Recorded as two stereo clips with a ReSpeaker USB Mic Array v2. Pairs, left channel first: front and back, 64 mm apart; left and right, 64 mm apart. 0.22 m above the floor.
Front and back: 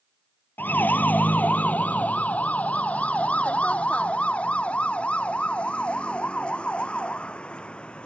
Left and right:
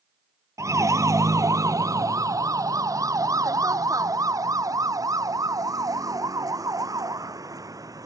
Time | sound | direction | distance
0.6 | a siren | 60° right | ?